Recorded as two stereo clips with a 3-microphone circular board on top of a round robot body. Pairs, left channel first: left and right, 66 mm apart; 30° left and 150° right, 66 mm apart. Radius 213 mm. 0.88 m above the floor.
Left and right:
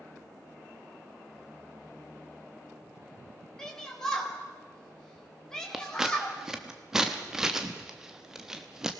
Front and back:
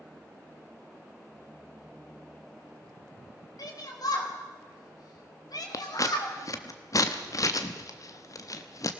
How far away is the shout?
About 4.5 m.